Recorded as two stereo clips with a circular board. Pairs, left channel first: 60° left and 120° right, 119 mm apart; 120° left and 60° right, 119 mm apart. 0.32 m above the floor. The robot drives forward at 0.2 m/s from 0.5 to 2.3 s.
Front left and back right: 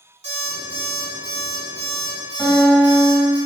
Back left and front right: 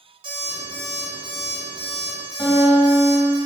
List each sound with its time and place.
0.2 s an alarm clock: 100° right, 1.8 m; by 3.4 s 110° right, 1.9 m
2.4 s a guitar: 145° left, 1.8 m